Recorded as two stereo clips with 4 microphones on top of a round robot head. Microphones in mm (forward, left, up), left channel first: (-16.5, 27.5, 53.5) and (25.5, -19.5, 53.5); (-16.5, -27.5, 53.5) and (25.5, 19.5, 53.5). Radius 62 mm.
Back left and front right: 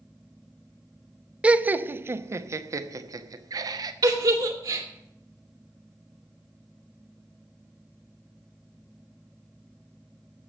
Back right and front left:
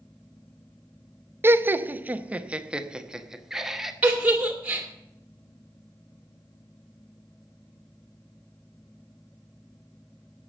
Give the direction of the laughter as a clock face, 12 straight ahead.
11 o'clock.